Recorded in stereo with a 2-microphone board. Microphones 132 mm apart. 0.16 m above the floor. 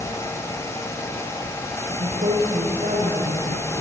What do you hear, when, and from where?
1.9 s a woman speaking: 85° right, 8.5 m